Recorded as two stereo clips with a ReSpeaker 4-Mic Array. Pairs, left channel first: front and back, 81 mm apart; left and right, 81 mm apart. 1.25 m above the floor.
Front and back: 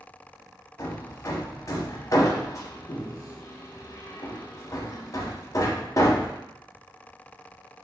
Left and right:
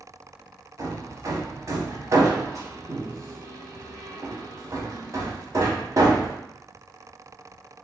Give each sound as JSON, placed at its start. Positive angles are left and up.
{"t": 0.8, "sound": "hammering", "azimuth_deg": -45, "distance_m": 0.7}